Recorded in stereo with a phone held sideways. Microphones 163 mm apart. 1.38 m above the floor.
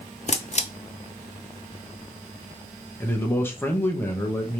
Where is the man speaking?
15° left (ahead or behind), 1.0 m.